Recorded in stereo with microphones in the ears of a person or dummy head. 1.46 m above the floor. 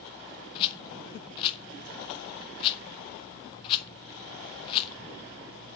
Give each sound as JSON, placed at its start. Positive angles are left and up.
{"t": 0.6, "sound": "a rattle", "side_deg": 30, "distance_m": 1.2}